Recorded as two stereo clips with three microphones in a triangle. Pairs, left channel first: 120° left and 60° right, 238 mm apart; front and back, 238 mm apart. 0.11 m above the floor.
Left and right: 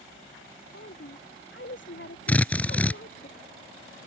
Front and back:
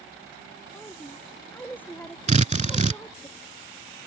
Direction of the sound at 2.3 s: 165° right.